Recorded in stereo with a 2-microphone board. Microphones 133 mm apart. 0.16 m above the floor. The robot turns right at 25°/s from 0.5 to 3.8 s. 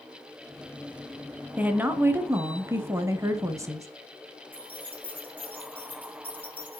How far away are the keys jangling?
About 5 m.